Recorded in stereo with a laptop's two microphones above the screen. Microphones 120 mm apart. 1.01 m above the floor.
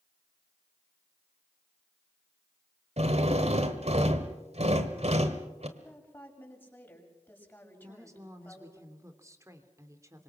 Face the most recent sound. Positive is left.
turn(degrees=-25)  # may be behind; listen again after turning